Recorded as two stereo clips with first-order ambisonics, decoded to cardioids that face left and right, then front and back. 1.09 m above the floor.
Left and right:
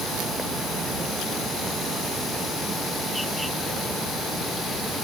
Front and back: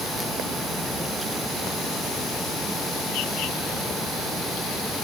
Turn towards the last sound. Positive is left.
No sound to turn to.